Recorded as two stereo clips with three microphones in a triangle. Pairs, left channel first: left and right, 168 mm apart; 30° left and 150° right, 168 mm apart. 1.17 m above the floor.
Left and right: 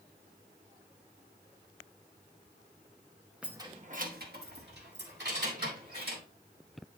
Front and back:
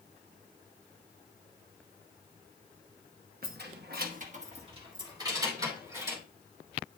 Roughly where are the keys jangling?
Behind.